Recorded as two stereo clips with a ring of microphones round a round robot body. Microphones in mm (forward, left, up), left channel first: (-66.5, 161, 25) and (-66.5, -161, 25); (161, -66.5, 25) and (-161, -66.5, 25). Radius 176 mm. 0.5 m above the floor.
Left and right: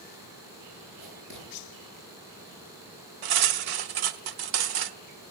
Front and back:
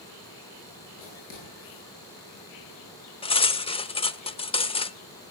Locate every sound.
1.0 s writing: 25° right, 9.5 m
3.2 s cutlery clinking: 75° right, 0.8 m